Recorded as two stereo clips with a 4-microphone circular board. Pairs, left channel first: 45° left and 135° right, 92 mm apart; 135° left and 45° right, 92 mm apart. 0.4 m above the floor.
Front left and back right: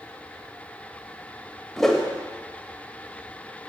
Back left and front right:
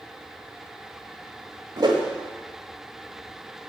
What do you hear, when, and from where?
1.8 s a whoosh: 40° right, 1.3 m